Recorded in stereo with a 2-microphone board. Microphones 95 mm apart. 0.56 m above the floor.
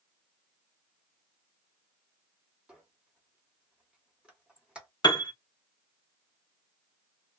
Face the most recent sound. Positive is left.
turn(degrees=45)  # may be behind; listen again after turning